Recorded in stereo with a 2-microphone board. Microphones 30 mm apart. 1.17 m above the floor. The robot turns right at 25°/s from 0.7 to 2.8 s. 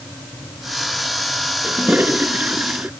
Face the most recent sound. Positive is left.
turn(degrees=-65)  # may be behind; listen again after turning